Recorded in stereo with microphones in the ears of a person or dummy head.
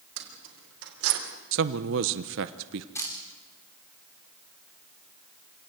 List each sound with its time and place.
0.2 s keys jangling: 75° right (ahead or behind), 4.5 m; by 1.2 s 80° right, 3.5 m
1.5 s a man speaking: 65° right (ahead or behind), 0.9 m
3.0 s a camera shutter: 15° left (ahead or behind), 4 m